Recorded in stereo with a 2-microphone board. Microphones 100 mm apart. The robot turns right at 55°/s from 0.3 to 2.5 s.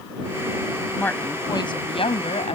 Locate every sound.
1.0 s a woman speaking: 10° left; by 2.6 s 95° left